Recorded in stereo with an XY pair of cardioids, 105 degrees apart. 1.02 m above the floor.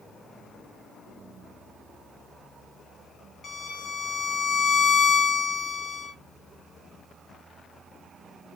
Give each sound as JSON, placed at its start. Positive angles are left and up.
{"t": 3.4, "sound": "a violin", "azimuth_deg": 50, "distance_m": 0.9}